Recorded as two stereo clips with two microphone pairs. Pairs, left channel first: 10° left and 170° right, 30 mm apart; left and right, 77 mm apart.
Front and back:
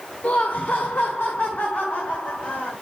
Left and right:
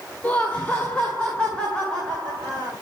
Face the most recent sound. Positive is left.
turn(degrees=10)